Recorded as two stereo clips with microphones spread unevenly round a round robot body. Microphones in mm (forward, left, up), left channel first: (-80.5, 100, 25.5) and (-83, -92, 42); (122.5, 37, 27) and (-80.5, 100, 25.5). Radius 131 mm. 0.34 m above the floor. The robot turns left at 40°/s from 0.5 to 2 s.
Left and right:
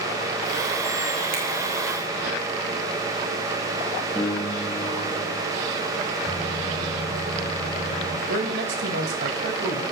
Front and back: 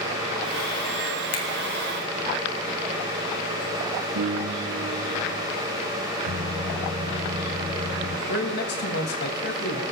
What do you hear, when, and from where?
1.3 s a finger snap: 40° right, 2.0 m; by 1.4 s 45° right, 2.0 m
4.2 s a piano: 165° left, 2.5 m
6.2 s a microwave: 145° left, 5 m
8.3 s a man speaking: 55° right, 1.6 m